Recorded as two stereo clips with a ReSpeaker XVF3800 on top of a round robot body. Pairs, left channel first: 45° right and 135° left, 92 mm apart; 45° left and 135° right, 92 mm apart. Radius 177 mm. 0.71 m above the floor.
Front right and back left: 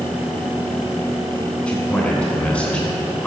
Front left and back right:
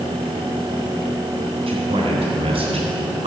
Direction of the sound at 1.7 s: 125° right.